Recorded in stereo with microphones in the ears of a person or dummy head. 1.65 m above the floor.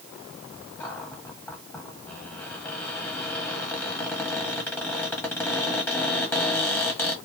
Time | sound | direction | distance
0.8 | a cupboard door | 15° left (ahead or behind) | 1.3 m